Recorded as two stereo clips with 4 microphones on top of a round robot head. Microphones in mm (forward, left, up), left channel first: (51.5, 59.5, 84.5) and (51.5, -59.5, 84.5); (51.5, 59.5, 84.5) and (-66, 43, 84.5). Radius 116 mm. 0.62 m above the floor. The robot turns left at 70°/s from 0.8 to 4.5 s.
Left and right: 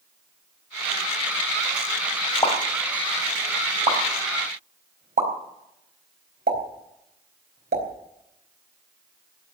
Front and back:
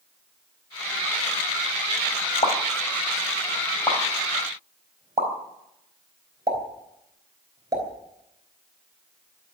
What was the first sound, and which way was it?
A pop, 35° left.